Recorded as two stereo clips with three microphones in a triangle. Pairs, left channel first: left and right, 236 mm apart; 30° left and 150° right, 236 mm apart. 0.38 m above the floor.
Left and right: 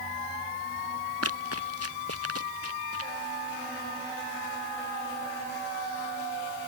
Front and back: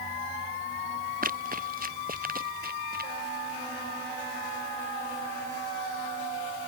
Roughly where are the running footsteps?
Right.